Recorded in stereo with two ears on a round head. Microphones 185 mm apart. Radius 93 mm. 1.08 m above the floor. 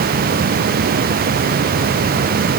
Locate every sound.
Only background noise.